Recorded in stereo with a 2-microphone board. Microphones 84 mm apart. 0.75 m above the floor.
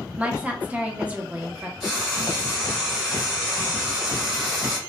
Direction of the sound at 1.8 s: 5° right (ahead or behind).